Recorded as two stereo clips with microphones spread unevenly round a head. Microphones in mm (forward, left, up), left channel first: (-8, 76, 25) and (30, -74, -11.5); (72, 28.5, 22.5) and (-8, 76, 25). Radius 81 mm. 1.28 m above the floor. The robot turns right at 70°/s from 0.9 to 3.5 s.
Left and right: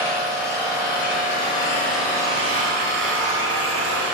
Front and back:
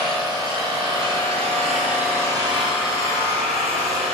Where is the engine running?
115° left, 4 m; by 4.1 s 60° right, 4 m.